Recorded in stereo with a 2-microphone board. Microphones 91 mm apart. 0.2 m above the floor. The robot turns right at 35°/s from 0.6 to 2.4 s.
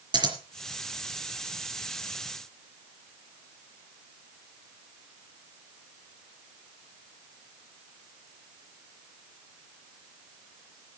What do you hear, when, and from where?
0.1 s scissors: 55° right (ahead or behind), 4 m